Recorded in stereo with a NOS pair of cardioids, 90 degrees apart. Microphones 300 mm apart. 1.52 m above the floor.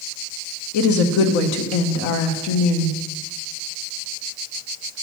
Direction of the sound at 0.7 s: 70° left.